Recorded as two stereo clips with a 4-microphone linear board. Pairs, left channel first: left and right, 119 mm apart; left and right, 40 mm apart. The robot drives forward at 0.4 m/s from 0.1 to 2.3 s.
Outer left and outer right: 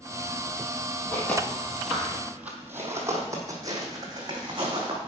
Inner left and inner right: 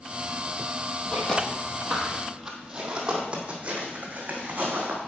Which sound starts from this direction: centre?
Footsteps, at 1.1 s.